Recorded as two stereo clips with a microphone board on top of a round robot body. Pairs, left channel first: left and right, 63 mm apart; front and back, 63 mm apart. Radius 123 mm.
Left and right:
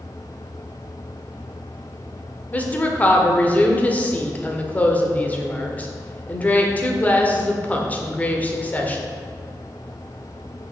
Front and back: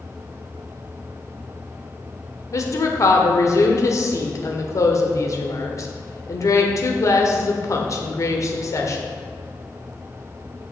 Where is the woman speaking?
25° left, 1.7 m.